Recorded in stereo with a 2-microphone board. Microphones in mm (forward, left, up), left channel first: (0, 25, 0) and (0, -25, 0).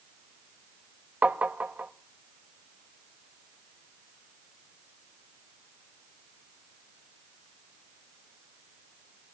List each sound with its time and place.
1.2 s tapping: 30° right (ahead or behind), 0.6 m